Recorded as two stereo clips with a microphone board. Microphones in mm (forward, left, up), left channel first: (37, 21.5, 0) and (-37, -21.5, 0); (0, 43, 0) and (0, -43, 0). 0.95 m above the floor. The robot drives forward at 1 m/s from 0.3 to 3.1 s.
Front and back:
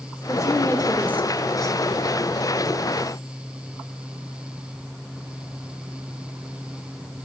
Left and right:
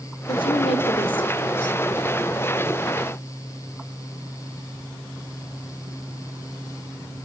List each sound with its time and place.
0.3 s a woman speaking: 85° left, 2.5 m; by 1.8 s 115° left, 2.5 m